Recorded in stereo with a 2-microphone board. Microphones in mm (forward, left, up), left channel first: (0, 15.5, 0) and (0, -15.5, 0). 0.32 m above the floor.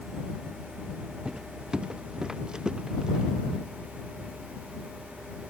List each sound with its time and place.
1.2 s footsteps: 30° right (ahead or behind); by 3.2 s 25° right (ahead or behind)